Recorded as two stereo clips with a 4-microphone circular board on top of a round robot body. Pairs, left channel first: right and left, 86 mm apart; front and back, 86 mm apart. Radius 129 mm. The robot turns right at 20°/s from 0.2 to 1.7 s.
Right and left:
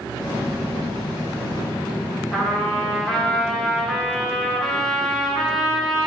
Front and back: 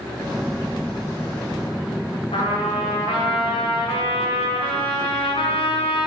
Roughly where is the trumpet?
Ahead.